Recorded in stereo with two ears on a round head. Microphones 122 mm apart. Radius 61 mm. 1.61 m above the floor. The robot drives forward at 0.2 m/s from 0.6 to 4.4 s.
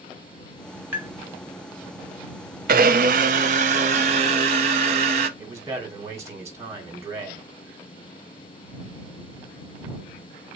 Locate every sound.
0.9 s tapping: 20° right (ahead or behind), 1.4 m
2.7 s a blender: 70° right (ahead or behind), 0.6 m; by 5.3 s 50° right (ahead or behind), 0.7 m
5.4 s a man speaking: 25° right (ahead or behind), 1.7 m